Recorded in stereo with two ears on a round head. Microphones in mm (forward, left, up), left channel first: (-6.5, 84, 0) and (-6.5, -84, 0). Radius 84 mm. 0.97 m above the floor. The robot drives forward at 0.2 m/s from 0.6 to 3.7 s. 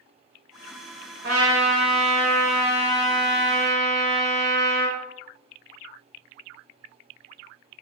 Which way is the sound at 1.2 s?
80° right.